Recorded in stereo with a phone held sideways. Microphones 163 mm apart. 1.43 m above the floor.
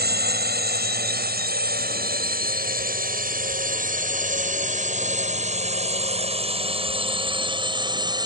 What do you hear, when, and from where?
0.0 s a drone: 80° right; by 8.3 s 25° right (ahead or behind)